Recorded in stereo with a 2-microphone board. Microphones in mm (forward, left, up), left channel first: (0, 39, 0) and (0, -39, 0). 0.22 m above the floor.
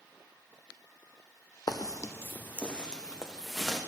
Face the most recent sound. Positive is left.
turn(degrees=0)  # may be behind; listen again after turning